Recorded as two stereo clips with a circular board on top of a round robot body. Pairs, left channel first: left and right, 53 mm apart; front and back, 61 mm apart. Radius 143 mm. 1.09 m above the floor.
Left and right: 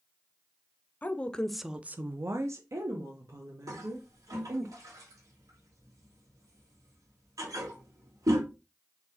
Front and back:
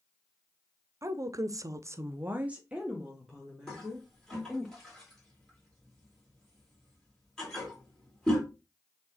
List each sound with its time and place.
1.0 s a woman speaking: 145° left, 0.7 m; by 4.7 s 85° right, 2 m
3.7 s a toilet flushing: 80° right, 2.5 m